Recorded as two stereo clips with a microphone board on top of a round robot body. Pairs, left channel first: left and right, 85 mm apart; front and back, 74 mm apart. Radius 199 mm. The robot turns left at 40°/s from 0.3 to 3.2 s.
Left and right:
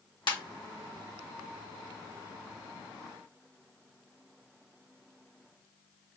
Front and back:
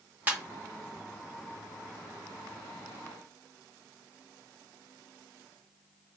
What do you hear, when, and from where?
0.3 s a ringtone: 115° left, 1.9 m; by 0.4 s 110° left, 1.9 m